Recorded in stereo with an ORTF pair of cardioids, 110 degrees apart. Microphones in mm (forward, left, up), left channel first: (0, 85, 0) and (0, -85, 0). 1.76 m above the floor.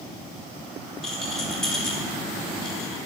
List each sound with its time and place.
1.0 s a rattle: 5° left, 4 m